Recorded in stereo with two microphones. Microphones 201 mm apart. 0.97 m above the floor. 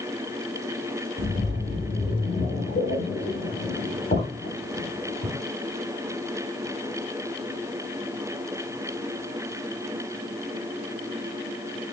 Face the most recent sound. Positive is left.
turn(degrees=60)  # may be behind; listen again after turning